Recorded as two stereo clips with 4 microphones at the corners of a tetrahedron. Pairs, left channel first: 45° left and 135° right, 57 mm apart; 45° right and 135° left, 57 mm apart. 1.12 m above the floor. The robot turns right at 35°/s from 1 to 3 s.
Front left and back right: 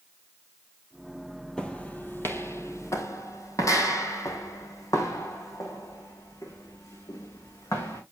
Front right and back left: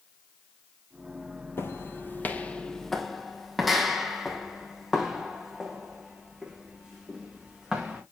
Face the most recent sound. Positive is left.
turn(degrees=55)